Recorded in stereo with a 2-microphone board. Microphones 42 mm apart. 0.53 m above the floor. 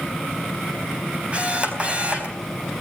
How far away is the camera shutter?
About 4 m.